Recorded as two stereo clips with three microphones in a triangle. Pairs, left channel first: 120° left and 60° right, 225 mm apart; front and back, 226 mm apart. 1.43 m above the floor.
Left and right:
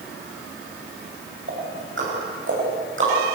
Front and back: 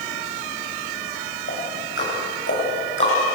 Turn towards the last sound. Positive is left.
turn(degrees=-30)